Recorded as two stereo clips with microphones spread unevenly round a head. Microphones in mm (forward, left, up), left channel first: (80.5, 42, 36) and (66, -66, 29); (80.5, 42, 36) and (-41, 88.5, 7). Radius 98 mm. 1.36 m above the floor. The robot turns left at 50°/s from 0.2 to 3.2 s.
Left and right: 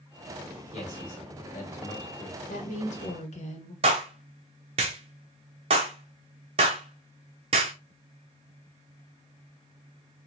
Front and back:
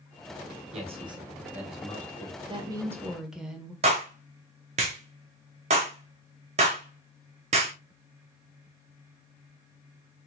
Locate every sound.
0.7 s a man speaking: 120° left, 2.0 m; by 2.4 s 40° left, 2.0 m
2.5 s a woman speaking: 110° left, 1.6 m; by 3.7 s 75° left, 1.6 m
3.8 s a clap: 150° right, 0.7 m